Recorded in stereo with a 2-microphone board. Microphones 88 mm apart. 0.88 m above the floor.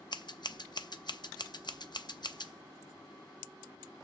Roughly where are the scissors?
Left.